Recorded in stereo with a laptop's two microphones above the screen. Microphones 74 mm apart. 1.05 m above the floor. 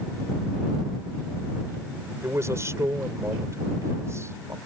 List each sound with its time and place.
2.2 s a man speaking: 40° right (ahead or behind)